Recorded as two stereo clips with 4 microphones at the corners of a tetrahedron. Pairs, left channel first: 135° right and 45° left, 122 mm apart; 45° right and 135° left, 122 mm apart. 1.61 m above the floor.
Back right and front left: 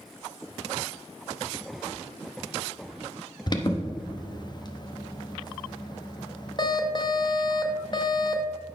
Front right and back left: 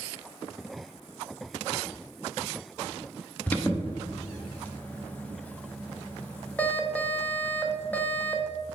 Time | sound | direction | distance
3.5 | an alarm | 110° right | 0.7 m